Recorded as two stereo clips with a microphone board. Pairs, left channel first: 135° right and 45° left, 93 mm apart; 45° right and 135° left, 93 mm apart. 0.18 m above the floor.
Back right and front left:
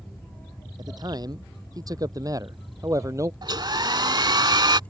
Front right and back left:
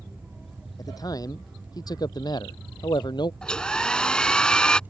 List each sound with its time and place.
0.8 s a man speaking: straight ahead; by 3.3 s 10° right
3.4 s a hair dryer: 35° left